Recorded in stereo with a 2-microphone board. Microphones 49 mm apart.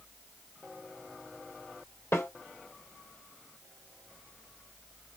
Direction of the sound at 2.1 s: 70° left (ahead or behind).